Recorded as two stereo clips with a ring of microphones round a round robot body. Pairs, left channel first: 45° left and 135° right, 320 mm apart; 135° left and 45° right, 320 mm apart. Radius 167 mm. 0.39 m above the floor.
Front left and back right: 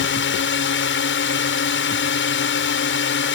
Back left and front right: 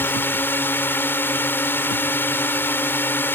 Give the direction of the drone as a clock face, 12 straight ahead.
10 o'clock.